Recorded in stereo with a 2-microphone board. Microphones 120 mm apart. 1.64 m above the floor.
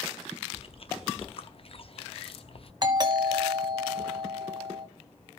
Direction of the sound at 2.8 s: 35° right (ahead or behind).